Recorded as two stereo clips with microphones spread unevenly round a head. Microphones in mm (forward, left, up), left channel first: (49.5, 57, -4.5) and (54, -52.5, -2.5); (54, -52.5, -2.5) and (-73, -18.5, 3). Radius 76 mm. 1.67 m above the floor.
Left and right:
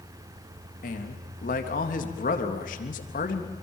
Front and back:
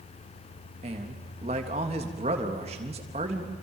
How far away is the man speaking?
About 3 m.